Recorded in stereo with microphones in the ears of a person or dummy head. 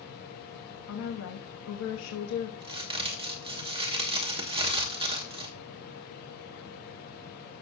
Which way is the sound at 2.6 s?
30° right (ahead or behind).